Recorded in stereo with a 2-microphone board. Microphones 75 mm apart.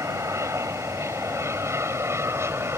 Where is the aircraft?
40° right (ahead or behind); by 2.8 s 35° right (ahead or behind).